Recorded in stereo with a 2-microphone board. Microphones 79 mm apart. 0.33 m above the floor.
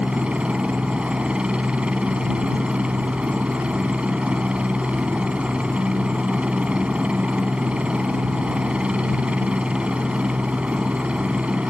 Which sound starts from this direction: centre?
A helicopter, at 0.0 s.